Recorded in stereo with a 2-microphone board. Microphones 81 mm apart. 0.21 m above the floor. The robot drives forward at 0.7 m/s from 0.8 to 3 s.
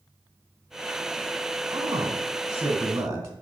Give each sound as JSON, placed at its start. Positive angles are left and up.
{"t": 1.7, "sound": "a man speaking", "side_deg": -40, "distance_m": 1.6}